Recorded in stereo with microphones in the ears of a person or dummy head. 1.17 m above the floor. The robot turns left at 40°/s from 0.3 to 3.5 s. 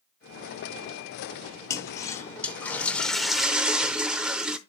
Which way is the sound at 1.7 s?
20° left (ahead or behind).